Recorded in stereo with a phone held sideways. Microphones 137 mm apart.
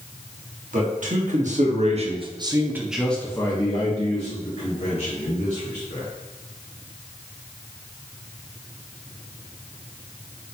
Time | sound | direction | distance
0.7 | a man speaking | 70° right (ahead or behind) | 1.5 m